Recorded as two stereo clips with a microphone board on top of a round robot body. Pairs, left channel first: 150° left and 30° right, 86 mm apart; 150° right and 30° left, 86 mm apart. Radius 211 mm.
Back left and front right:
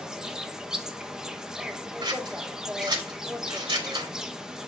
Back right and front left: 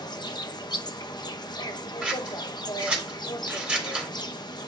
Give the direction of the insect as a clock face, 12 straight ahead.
4 o'clock.